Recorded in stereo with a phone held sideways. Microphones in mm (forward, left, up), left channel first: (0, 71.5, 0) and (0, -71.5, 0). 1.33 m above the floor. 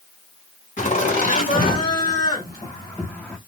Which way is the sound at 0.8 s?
60° left (ahead or behind).